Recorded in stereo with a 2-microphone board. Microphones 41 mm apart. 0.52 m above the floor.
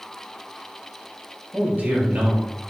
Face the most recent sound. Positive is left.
turn(degrees=-45)  # may be behind; listen again after turning